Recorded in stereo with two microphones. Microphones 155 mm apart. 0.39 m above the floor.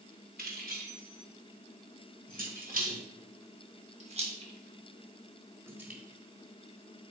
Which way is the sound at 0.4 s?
75° right (ahead or behind).